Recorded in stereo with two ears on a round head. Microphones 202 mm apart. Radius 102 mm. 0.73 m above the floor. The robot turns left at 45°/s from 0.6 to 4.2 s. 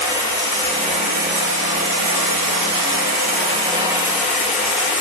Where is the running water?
20° right, 7.5 m; by 5.0 s straight behind, 7.5 m.